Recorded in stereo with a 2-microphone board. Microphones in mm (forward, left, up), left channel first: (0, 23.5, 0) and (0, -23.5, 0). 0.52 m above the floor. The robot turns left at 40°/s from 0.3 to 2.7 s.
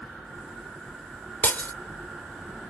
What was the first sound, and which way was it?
Breaking glass, 40° left (ahead or behind).